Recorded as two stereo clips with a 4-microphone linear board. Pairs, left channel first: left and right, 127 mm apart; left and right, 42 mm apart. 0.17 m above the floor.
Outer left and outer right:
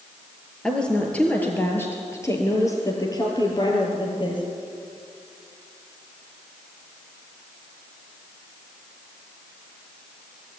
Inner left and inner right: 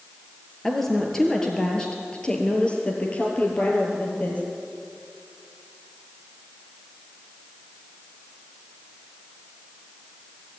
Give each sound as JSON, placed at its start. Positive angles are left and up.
{"t": 0.6, "sound": "a woman speaking", "side_deg": 5, "distance_m": 4.0}